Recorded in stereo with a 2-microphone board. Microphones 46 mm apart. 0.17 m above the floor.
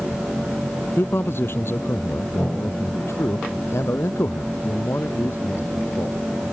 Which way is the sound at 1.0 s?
55° left (ahead or behind).